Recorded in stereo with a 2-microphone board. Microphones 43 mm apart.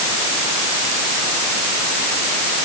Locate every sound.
Only background noise.